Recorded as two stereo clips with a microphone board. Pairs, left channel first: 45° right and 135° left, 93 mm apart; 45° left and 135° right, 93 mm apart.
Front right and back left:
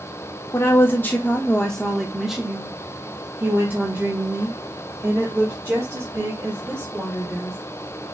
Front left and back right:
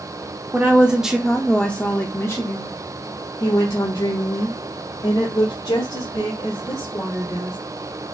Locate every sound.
0.5 s a woman speaking: 80° right, 1.0 m; by 7.6 s 80° left, 3 m